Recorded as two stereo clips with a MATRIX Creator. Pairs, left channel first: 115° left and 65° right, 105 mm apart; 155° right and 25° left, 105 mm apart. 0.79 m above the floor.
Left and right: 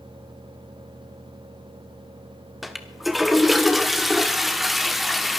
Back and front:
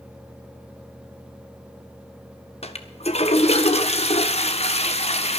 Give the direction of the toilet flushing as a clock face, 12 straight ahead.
5 o'clock.